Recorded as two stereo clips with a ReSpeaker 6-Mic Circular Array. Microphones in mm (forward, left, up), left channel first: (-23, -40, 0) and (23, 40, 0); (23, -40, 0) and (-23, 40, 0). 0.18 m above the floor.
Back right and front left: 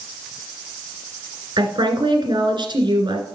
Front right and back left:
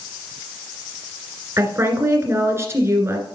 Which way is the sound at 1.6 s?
65° left.